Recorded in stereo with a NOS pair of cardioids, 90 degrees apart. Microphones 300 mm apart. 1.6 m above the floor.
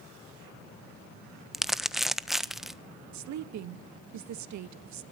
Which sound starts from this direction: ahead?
Crumpling, at 1.5 s.